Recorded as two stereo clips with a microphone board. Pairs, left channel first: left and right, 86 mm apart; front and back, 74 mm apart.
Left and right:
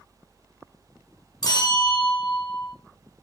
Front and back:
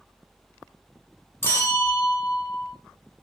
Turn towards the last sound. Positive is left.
turn(degrees=55)